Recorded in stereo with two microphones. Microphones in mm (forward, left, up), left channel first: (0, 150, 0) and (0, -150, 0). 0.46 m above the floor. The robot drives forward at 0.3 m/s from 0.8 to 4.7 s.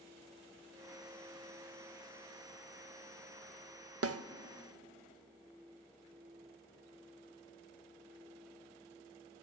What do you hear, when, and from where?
4.0 s a snare drum: 55° right (ahead or behind), 0.6 m